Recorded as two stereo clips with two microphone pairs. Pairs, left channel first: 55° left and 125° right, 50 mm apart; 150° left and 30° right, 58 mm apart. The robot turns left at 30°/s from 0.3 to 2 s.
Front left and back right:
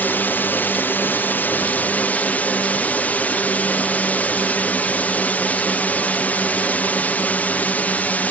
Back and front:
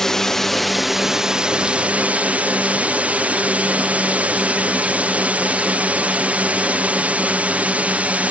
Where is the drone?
70° left; by 8.3 s 20° left.